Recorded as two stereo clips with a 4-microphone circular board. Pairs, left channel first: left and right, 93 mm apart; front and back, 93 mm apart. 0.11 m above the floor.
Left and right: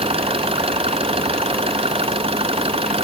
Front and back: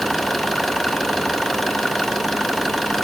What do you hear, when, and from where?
0.0 s an engine running: 90° right